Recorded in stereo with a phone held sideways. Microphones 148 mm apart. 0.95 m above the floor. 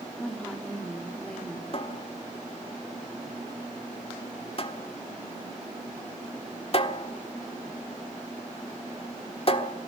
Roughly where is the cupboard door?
Left.